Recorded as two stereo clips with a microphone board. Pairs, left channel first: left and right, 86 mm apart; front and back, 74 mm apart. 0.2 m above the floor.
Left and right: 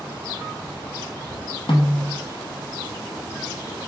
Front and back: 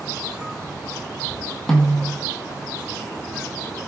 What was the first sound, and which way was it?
A snare drum, 80° left.